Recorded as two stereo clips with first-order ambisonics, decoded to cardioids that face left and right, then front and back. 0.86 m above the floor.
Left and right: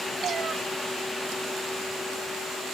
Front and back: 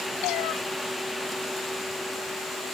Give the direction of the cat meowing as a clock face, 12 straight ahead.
1 o'clock.